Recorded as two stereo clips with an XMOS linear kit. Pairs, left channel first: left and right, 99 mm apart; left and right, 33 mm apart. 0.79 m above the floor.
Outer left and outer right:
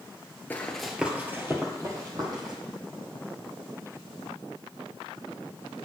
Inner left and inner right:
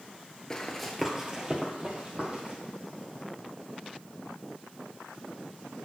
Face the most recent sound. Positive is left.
turn(degrees=-45)  # may be behind; listen again after turning